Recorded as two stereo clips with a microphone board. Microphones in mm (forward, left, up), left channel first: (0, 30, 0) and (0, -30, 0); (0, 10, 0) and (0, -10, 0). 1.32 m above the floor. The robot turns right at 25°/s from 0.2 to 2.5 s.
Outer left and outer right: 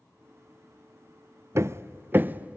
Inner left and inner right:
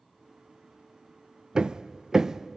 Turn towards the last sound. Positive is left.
turn(degrees=-20)  # may be behind; listen again after turning